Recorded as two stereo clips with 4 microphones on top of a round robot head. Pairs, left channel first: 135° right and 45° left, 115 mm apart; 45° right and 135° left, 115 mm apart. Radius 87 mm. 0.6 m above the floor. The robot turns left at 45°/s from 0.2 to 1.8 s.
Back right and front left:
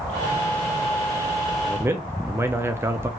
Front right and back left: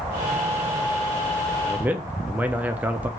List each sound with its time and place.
1.6 s a man speaking: 90° left, 0.6 m; by 3.1 s 80° left, 0.6 m